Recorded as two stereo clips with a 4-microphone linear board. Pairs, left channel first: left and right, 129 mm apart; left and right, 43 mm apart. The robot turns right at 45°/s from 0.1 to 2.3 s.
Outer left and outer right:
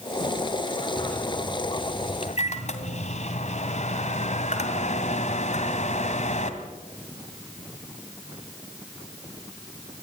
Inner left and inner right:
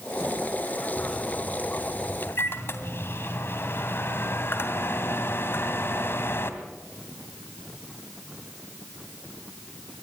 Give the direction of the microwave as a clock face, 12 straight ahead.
12 o'clock.